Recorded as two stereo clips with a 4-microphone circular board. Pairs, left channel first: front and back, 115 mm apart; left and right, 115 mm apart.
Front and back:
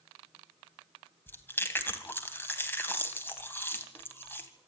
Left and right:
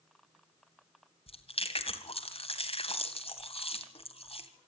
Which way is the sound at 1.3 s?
70° left.